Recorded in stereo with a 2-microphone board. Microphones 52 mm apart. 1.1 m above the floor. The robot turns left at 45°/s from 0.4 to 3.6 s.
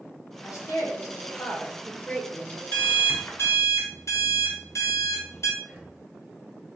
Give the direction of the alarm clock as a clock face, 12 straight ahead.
7 o'clock.